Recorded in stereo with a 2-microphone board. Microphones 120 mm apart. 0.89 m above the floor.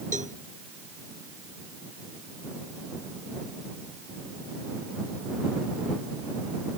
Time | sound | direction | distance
0.1 | a cowbell | 75° right (ahead or behind) | ?